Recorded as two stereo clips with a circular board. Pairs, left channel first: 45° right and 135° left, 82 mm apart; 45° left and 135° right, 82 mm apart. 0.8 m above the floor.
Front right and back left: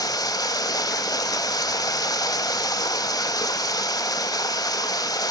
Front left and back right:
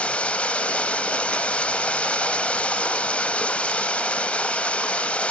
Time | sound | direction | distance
0.0 | running water | 25° right | 0.8 m